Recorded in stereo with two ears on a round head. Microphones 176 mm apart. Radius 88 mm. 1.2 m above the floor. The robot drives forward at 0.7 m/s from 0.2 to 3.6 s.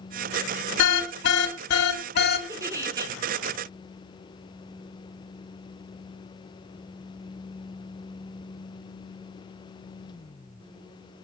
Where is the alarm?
70° left (ahead or behind), 2.5 m; by 2.4 s 55° left (ahead or behind), 2.5 m.